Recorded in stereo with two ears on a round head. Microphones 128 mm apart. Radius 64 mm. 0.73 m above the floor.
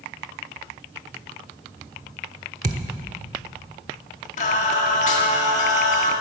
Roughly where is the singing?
Left.